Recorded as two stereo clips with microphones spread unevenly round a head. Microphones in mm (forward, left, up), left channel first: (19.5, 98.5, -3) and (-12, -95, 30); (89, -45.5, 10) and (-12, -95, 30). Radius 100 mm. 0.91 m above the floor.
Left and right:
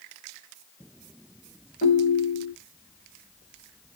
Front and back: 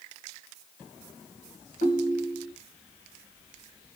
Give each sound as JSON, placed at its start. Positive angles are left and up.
{"t": 1.8, "sound": "a ringtone", "azimuth_deg": 30, "distance_m": 1.6}